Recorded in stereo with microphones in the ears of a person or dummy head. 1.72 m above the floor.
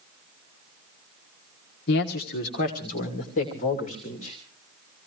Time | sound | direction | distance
1.9 | a man speaking | 65° left (ahead or behind) | 1.3 m